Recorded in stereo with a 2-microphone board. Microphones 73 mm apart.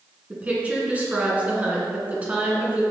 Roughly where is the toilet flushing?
No toilet flushing in this recording.